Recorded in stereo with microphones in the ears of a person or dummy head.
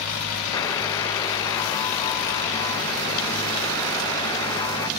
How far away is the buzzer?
About 0.7 m.